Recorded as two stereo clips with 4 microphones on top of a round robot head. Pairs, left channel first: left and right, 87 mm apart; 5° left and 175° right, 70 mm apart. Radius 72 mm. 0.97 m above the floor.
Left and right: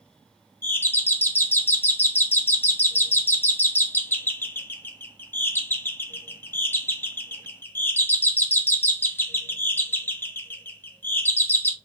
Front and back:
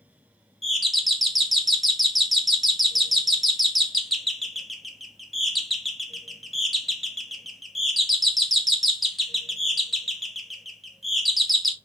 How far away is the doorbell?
About 0.6 m.